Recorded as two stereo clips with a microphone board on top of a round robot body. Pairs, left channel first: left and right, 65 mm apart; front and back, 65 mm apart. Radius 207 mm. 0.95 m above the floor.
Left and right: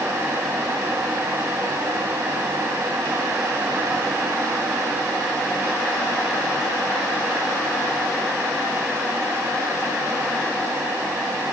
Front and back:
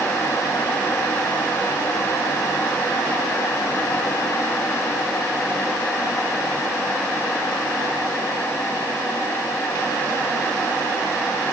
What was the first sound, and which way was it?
Only background noise.